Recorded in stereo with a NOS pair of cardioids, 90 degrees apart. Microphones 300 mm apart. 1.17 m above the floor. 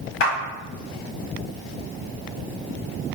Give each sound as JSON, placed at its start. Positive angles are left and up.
{"t": 0.2, "sound": "a clap", "azimuth_deg": 60, "distance_m": 1.4}